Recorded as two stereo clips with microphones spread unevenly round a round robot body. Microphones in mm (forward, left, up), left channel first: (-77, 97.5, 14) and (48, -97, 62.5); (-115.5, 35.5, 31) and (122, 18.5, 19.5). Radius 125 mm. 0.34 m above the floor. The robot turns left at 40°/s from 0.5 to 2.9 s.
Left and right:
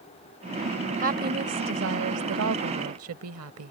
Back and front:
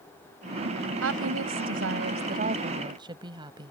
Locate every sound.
1.0 s a woman speaking: straight ahead; by 3.7 s 75° right